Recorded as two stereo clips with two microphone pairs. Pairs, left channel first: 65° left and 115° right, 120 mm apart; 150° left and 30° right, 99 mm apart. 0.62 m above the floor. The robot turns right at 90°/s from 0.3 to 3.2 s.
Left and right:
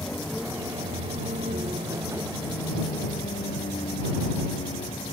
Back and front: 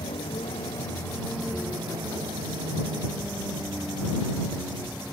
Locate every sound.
0.0 s a vehicle: 145° left; by 5.1 s 50° left